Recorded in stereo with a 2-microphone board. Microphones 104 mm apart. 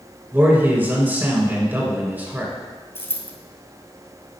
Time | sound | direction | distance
0.3 | a man speaking | 20° right (ahead or behind) | 1.5 m
3.0 | a dropped coin | 25° left (ahead or behind) | 0.9 m